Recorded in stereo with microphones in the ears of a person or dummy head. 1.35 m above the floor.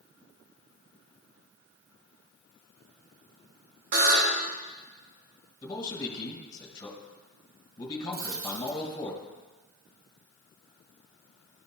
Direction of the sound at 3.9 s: 60° right (ahead or behind).